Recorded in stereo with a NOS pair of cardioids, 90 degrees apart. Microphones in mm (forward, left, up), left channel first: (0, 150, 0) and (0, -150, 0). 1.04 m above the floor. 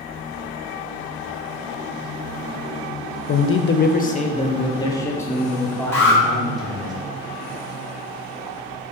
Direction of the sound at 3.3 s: 55° left.